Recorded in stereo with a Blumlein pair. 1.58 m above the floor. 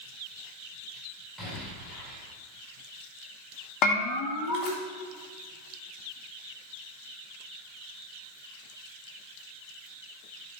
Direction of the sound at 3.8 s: 35° left.